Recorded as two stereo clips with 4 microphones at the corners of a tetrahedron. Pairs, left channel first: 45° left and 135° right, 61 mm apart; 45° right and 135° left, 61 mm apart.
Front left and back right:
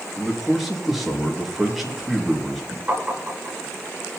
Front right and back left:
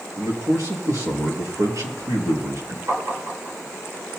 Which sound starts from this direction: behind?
Tapping, at 2.9 s.